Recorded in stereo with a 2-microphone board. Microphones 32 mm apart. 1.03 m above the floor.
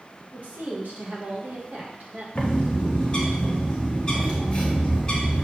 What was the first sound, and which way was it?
A woman speaking, 55° right (ahead or behind).